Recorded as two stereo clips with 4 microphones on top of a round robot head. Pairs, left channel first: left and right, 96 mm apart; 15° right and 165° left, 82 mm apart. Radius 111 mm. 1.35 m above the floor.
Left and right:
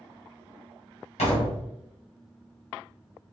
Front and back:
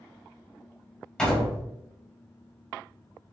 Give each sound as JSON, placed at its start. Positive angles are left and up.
{"t": 1.2, "sound": "a door slam", "azimuth_deg": 70, "distance_m": 1.2}